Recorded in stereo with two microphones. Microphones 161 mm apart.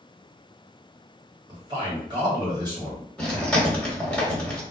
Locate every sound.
1.5 s a man speaking: 25° right (ahead or behind), 1.5 m
3.2 s chewing: 5° left (ahead or behind), 1.0 m